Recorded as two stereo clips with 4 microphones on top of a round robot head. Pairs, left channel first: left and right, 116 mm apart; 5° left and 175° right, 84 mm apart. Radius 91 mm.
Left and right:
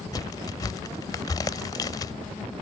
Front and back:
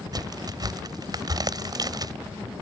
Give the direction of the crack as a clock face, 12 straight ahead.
7 o'clock.